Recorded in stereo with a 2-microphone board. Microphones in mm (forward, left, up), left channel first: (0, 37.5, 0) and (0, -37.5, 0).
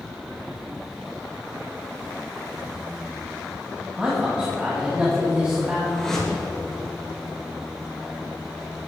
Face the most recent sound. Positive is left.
turn(degrees=5)  # may be behind; listen again after turning